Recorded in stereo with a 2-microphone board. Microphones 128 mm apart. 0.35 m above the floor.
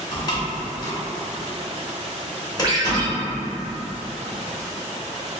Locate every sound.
0.1 s a door slam: 30° left (ahead or behind), 0.9 m
2.6 s a ringtone: 35° right (ahead or behind), 0.8 m